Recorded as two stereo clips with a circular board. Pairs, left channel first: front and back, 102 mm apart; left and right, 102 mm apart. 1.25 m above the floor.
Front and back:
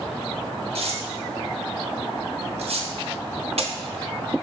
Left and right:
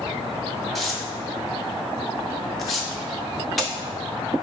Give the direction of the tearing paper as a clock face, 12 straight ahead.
6 o'clock.